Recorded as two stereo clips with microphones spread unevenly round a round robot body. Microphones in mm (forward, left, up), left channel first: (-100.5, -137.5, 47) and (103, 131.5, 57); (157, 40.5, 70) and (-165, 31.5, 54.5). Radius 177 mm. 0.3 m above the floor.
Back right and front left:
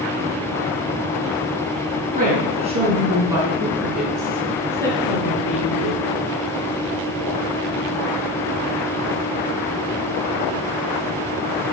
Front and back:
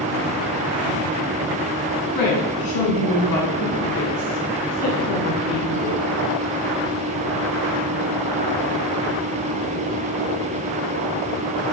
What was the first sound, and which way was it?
A woman speaking, 15° right.